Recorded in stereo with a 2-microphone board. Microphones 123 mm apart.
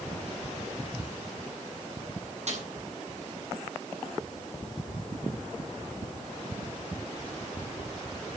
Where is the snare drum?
60° right (ahead or behind), 7 m.